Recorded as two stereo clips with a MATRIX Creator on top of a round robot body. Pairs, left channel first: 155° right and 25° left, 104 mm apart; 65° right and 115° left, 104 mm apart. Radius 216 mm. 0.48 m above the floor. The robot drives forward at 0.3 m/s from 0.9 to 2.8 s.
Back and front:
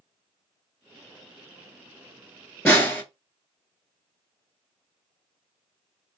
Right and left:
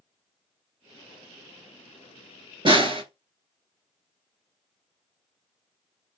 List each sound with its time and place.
2.6 s a snare drum: 135° left, 1.5 m